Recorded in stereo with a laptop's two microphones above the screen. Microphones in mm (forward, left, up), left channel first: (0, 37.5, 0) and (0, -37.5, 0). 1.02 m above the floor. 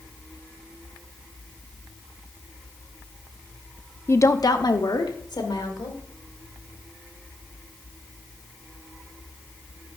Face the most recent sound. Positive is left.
turn(degrees=75)  # may be behind; listen again after turning